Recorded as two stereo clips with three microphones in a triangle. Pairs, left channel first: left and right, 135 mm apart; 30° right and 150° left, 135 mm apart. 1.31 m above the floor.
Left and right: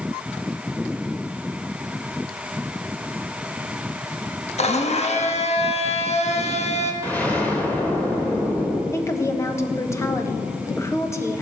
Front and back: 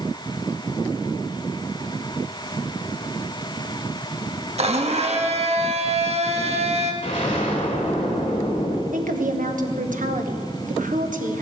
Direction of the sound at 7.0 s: 10° left.